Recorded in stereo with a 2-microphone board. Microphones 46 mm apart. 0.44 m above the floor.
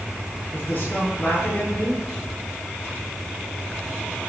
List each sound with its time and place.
0.5 s a man speaking: 35° left (ahead or behind), 8 m